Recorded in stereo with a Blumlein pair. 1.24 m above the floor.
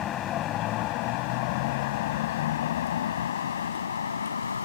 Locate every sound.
0.0 s a vehicle: 30° left; by 4.7 s 70° left